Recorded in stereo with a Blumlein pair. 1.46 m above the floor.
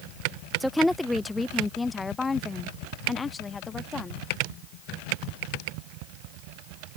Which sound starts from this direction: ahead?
A woman speaking, at 0.6 s.